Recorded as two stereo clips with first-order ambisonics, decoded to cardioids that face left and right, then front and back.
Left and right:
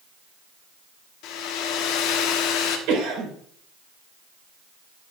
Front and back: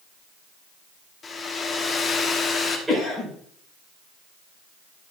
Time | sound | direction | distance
1.2 | a hair dryer | 70° left | 1.2 m
2.9 | a cough | 100° right | 4.5 m